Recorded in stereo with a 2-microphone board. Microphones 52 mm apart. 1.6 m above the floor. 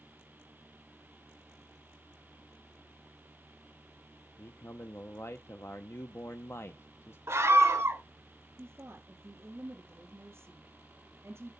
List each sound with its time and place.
4.4 s a man speaking: 55° left (ahead or behind), 0.8 m
7.3 s a scream: 45° right (ahead or behind), 1.3 m
8.6 s a woman speaking: 50° right (ahead or behind), 3 m